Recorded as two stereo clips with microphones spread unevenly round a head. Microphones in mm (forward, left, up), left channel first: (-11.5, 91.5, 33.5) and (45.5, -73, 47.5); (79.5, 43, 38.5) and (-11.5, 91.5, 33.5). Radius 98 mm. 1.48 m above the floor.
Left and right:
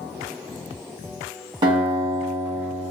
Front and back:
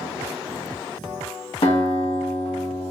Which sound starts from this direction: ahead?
A guitar, at 1.6 s.